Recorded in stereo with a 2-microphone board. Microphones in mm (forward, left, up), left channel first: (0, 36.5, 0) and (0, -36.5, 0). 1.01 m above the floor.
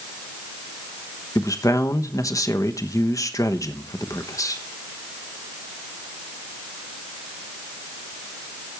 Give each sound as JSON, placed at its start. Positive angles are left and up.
{"t": 1.4, "sound": "a man speaking", "side_deg": 45, "distance_m": 1.0}